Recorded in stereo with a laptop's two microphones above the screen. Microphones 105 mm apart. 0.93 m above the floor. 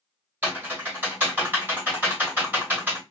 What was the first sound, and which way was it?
Typing on a keyboard, 15° right (ahead or behind).